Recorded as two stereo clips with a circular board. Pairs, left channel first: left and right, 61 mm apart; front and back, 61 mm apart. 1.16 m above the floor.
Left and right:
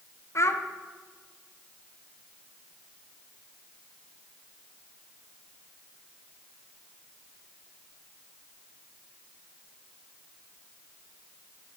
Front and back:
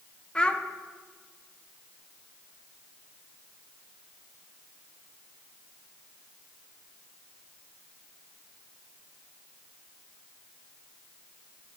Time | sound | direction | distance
0.3 | a child speaking | 70° left | 0.5 m